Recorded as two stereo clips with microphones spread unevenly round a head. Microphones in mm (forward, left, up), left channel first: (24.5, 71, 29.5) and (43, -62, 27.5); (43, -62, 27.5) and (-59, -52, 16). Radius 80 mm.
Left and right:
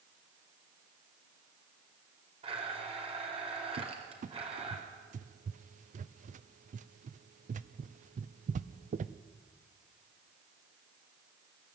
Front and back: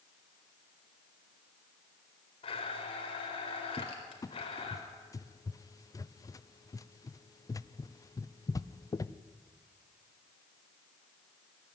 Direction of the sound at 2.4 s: 35° right.